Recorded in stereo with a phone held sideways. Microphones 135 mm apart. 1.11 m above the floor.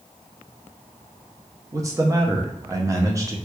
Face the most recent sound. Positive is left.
turn(degrees=-25)  # may be behind; listen again after turning